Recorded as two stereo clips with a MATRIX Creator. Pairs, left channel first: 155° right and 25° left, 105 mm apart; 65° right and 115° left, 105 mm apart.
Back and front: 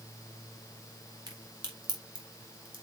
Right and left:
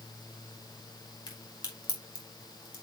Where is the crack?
25° right, 2.5 m.